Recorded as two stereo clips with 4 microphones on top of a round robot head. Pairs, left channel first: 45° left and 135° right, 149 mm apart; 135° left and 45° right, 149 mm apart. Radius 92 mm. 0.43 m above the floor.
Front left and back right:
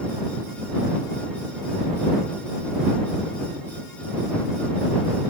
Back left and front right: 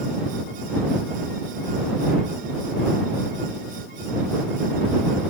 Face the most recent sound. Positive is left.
No sound to turn to.